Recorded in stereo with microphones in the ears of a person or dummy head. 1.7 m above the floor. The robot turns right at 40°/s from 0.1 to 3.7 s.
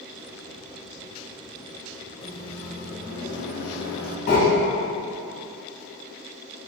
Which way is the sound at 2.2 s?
30° left.